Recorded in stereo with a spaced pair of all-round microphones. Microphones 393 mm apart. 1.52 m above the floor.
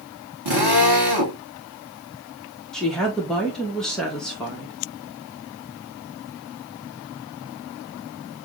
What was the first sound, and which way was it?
A drill, 90° right.